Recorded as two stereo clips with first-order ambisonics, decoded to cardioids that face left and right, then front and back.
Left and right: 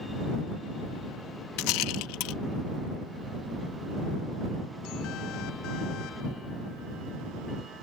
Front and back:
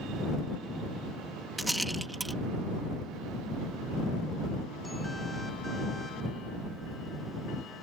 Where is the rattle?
95° left.